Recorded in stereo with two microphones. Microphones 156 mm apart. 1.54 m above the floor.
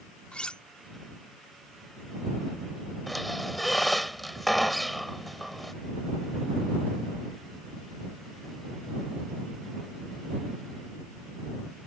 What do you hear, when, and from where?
0.3 s cutlery clinking: 5° left (ahead or behind)
3.1 s a squeak: centre (ahead or behind)